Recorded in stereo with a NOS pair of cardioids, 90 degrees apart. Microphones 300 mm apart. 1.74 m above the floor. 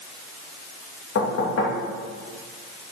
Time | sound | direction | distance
1.1 | knocking | 50° left | 2.5 m